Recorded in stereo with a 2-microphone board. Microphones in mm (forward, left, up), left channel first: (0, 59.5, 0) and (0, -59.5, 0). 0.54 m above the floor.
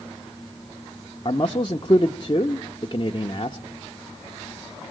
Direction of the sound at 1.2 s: 40° left (ahead or behind).